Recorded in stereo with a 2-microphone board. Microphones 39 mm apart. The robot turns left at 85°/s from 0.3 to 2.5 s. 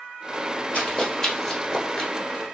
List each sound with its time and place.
0.7 s running footsteps: 30° left (ahead or behind), 2.0 m; by 2.1 s 15° left (ahead or behind), 1.5 m